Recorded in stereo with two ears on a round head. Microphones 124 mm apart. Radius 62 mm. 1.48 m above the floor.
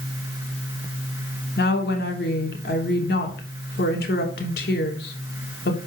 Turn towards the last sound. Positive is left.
turn(degrees=75)  # may be behind; listen again after turning